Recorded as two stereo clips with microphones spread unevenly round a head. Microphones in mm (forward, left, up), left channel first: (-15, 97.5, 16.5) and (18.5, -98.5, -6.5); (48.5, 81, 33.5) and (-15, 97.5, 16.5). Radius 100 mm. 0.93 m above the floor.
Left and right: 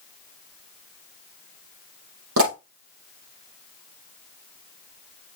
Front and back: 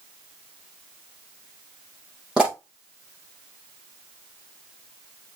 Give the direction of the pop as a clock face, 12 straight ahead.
3 o'clock.